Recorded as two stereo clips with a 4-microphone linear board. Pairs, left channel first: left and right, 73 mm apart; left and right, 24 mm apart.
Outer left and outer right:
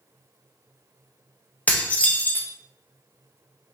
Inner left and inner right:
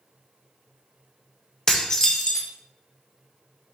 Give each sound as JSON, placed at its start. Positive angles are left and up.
{"t": 1.7, "sound": "dishes clattering", "side_deg": 20, "distance_m": 0.6}